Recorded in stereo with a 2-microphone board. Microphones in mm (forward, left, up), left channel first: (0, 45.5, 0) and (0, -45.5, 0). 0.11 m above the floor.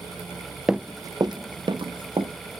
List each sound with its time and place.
0.7 s running footsteps: 5° right (ahead or behind), 0.5 m; by 2.3 s 70° right (ahead or behind), 2 m